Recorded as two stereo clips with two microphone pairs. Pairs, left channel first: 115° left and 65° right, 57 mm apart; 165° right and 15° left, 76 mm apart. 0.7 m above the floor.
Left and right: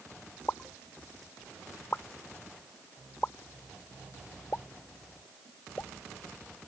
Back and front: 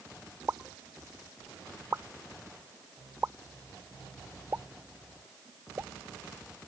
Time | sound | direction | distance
0.5 | a pop | 70° left | ?